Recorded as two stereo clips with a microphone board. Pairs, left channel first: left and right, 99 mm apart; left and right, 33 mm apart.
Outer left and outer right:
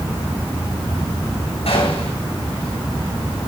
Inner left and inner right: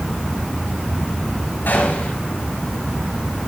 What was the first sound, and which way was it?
A gunshot, 85° left.